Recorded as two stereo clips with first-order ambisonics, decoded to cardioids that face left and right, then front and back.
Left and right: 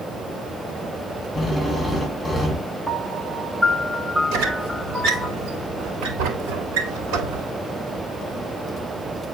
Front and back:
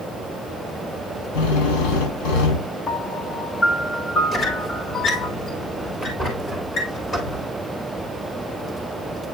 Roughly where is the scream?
No scream in this recording.